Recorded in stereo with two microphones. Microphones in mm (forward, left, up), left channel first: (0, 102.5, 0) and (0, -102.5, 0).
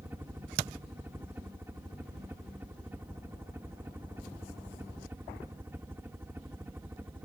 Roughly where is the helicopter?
Centre.